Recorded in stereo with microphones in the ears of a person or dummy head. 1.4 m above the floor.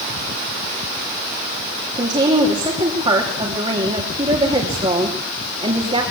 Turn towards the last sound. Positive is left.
turn(degrees=-30)  # may be behind; listen again after turning